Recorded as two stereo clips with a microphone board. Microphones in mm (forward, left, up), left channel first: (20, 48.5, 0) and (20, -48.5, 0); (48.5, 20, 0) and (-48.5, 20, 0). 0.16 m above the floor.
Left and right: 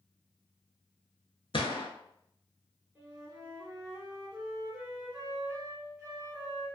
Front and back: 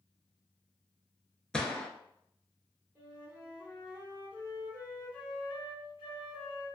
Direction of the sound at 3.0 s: 150° right.